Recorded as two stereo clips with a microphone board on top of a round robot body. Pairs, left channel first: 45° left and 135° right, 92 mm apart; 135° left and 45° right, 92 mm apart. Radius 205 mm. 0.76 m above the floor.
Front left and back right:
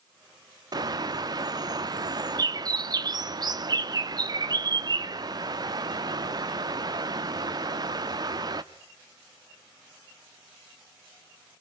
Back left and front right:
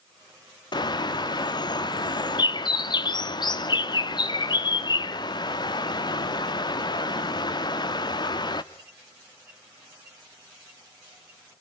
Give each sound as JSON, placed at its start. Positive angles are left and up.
{"t": 0.7, "sound": "a bird", "azimuth_deg": 180, "distance_m": 1.0}